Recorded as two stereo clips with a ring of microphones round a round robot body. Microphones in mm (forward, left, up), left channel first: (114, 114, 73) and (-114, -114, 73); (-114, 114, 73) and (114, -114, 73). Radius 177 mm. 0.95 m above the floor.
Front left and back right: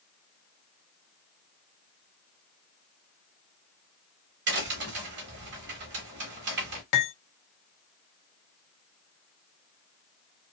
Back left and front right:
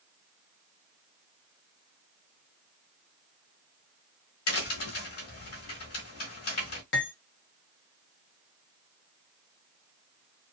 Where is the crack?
175° left, 1.0 m.